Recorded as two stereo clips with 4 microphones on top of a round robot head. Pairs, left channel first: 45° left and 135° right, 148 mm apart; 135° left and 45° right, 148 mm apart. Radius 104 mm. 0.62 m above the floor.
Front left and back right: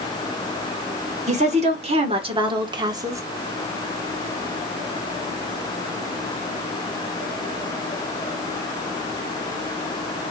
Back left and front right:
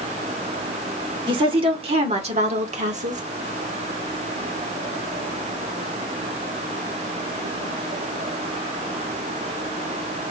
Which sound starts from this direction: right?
A woman speaking, at 1.3 s.